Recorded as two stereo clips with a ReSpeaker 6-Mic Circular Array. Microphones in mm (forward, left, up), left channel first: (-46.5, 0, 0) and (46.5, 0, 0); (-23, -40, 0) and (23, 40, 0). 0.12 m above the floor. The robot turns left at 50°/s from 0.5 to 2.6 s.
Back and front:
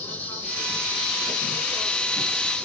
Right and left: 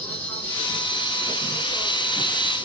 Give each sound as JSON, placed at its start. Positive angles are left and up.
{"t": 0.0, "sound": "an insect", "azimuth_deg": -150, "distance_m": 2.0}